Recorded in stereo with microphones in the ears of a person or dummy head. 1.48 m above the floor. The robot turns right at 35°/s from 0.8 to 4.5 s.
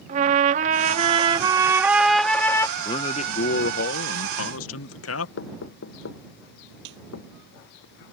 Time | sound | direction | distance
0.1 | a trumpet | 50° right | ?
2.8 | a man speaking | 25° left | ?
5.4 | knocking | 75° left (ahead or behind) | ?
6.8 | a snare drum | 75° right (ahead or behind) | ?